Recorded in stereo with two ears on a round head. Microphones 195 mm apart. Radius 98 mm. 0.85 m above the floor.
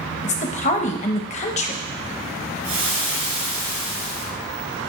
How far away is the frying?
About 3.5 m.